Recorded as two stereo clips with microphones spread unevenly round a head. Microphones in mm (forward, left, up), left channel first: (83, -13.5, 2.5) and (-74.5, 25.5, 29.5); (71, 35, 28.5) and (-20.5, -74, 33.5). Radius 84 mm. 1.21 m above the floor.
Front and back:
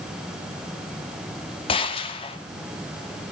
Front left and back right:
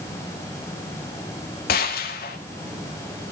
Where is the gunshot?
45° left, 2.5 m.